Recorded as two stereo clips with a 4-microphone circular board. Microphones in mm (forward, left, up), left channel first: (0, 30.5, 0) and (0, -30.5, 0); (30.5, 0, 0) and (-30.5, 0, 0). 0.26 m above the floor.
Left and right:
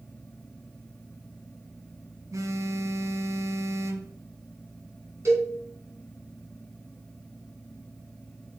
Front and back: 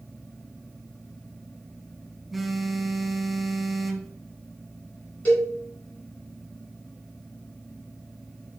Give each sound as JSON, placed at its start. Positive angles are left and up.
{"t": 2.3, "sound": "a phone buzzing", "azimuth_deg": -95, "distance_m": 0.8}
{"t": 5.2, "sound": "a cowbell", "azimuth_deg": -65, "distance_m": 3.0}